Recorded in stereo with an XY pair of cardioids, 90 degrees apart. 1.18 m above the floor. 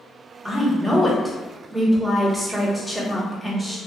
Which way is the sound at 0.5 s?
5° right.